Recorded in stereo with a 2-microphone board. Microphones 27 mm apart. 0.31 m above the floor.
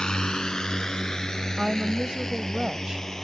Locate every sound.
0.0 s a drone: 35° left (ahead or behind); by 3.2 s 20° left (ahead or behind)
1.6 s a woman speaking: 30° right (ahead or behind)